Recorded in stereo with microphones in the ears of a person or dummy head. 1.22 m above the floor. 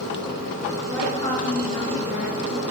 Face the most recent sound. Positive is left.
turn(degrees=35)  # may be behind; listen again after turning